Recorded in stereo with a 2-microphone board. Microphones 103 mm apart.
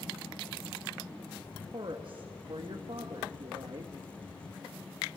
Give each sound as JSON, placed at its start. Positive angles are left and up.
{"t": 1.7, "sound": "a woman speaking", "side_deg": -60, "distance_m": 1.7}